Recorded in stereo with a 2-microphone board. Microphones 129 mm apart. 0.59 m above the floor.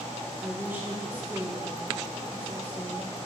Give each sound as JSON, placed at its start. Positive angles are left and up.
{"t": 0.4, "sound": "a woman speaking", "side_deg": -15, "distance_m": 2.0}